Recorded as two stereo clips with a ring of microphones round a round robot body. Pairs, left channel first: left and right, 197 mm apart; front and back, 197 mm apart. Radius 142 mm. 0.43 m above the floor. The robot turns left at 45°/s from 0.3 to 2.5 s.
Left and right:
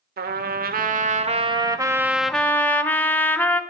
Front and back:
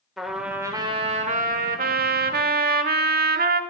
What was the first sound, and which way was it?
A trumpet, 90° right.